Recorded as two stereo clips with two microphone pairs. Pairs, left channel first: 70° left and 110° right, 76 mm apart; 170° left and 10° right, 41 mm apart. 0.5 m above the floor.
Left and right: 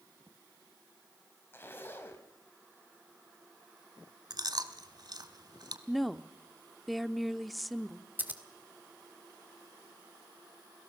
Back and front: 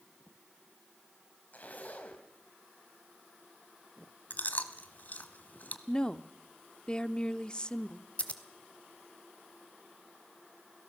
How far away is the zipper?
About 3 m.